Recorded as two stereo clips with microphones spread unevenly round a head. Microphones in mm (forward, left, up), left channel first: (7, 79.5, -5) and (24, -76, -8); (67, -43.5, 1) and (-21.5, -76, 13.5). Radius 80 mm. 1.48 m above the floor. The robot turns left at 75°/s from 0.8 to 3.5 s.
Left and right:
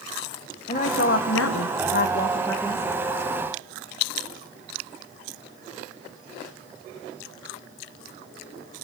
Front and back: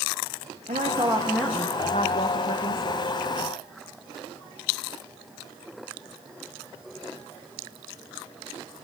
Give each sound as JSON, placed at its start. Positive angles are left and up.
{"t": 0.7, "sound": "a woman speaking", "azimuth_deg": 150, "distance_m": 1.3}